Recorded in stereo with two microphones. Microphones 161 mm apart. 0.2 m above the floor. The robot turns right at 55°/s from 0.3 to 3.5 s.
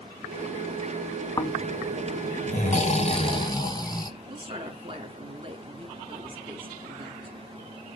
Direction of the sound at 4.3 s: 35° right (ahead or behind).